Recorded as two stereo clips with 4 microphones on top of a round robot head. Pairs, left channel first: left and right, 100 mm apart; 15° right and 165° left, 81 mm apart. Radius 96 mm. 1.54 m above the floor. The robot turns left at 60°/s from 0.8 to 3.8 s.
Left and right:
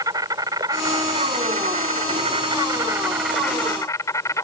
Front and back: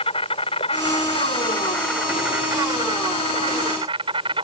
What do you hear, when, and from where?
0.0 s an insect: 30° right; by 4.4 s 150° left